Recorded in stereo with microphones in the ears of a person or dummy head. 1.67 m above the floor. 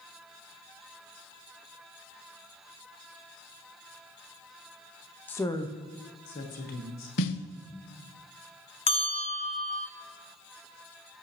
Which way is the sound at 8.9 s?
25° left (ahead or behind).